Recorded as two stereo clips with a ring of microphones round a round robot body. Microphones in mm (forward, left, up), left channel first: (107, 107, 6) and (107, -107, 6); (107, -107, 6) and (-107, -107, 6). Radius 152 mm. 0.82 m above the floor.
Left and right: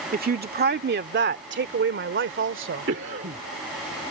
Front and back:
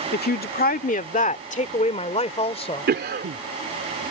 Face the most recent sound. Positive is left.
turn(degrees=-140)